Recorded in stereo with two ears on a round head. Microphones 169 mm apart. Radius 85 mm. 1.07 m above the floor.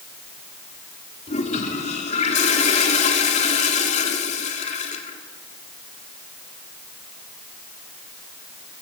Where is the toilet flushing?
40° left (ahead or behind), 3 m.